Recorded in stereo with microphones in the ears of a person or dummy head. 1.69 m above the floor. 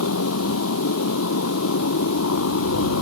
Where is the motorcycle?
80° left.